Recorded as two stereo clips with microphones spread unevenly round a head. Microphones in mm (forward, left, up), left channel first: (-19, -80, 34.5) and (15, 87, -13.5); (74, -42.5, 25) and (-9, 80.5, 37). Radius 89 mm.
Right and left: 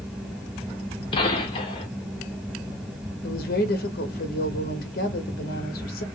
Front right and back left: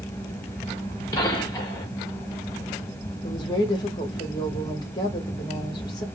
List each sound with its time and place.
0.0 s a fan: 10° left, 0.9 m
1.1 s a gunshot: 130° right, 0.8 m
3.2 s a woman speaking: 125° right, 0.9 m